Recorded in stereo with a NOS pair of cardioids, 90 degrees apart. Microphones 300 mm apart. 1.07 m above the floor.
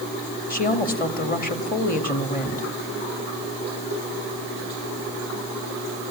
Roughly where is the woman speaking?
Ahead left.